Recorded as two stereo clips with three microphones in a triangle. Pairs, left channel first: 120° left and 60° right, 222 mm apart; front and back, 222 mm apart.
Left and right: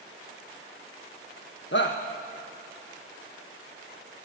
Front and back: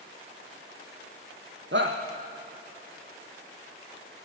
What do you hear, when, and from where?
1.7 s a shout: 150° left, 1.3 m